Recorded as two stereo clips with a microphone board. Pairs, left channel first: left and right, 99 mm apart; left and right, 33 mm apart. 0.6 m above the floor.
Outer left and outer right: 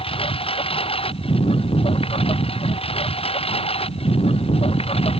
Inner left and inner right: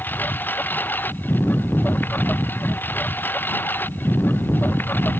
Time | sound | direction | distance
0.0 | a lawn mower | 70° left (ahead or behind) | ?